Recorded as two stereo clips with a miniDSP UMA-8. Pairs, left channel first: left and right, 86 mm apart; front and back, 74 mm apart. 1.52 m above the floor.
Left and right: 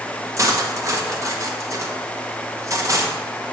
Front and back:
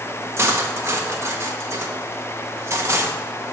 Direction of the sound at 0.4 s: 135° right.